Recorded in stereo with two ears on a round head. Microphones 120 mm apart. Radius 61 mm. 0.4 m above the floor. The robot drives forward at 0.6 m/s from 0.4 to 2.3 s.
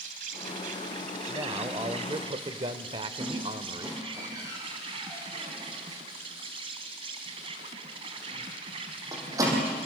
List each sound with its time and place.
0.0 s an insect: 70° right (ahead or behind), 1.6 m; by 9.9 s 45° right (ahead or behind), 2 m
1.3 s a man speaking: 30° right (ahead or behind), 1.3 m; by 4.2 s 40° right (ahead or behind), 1.0 m
3.2 s a squeak: 25° right (ahead or behind), 5.5 m